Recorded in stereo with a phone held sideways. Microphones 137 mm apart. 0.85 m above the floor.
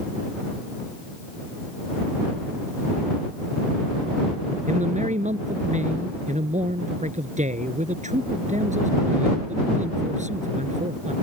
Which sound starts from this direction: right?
A man speaking, at 4.7 s.